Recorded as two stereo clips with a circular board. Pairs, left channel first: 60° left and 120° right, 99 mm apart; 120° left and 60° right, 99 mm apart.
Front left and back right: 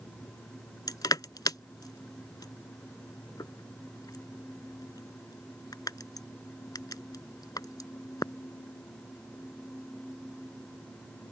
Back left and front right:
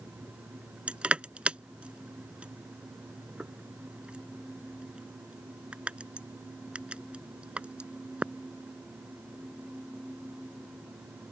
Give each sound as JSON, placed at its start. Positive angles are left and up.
{"t": 0.9, "sound": "crushing", "azimuth_deg": 15}